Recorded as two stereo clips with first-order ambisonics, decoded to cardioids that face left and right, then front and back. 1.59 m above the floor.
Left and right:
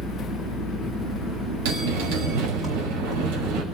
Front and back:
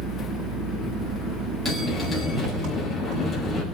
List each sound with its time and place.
0.0 s an engine running: 155° right, 6.5 m
1.6 s a bell: 100° right, 5 m